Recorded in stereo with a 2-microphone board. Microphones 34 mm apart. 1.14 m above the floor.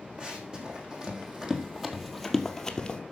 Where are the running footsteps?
30° right (ahead or behind), 3 m; by 3.0 s 25° left (ahead or behind), 1.3 m.